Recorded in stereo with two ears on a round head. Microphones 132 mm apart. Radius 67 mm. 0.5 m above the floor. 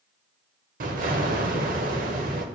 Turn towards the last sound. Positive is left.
turn(degrees=-65)  # may be behind; listen again after turning